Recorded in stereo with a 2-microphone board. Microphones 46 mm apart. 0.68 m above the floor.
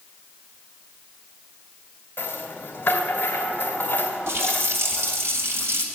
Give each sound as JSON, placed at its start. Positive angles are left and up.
{"t": 2.2, "sound": "a rattle", "side_deg": 45, "distance_m": 2.5}
{"t": 4.3, "sound": "a running tap", "side_deg": -65, "distance_m": 2.5}